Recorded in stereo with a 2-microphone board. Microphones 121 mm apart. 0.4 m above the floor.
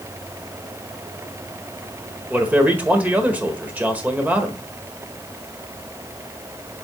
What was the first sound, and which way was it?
A man speaking, 15° right (ahead or behind).